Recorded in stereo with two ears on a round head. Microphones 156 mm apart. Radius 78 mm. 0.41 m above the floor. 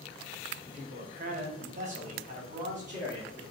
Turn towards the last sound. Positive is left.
turn(degrees=-45)  # may be behind; listen again after turning